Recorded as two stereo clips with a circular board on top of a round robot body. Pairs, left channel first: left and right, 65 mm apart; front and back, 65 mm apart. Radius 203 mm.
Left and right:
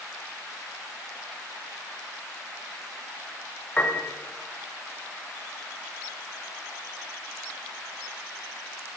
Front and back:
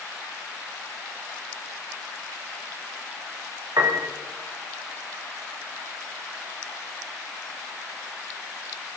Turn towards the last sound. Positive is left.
turn(degrees=155)